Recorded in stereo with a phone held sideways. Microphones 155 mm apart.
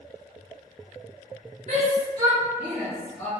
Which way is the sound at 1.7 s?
50° right (ahead or behind).